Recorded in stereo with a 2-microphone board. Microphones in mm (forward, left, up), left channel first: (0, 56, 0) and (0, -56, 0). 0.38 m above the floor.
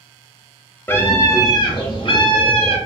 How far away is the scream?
About 0.9 m.